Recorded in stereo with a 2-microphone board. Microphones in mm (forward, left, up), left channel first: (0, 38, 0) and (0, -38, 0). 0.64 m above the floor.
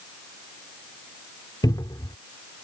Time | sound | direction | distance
1.6 | a cupboard door | 60° left (ahead or behind) | ?